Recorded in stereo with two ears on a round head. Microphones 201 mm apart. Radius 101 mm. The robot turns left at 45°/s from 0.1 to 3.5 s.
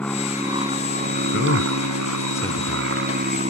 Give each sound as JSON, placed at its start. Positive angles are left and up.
{"t": 0.0, "sound": "an aircraft", "azimuth_deg": 5}
{"t": 1.3, "sound": "a man speaking", "side_deg": 60}